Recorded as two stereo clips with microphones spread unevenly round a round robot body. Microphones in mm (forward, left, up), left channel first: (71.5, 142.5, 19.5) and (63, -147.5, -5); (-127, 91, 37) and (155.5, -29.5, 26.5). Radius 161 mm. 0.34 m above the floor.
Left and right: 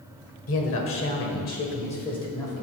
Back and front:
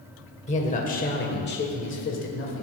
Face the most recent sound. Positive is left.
turn(degrees=175)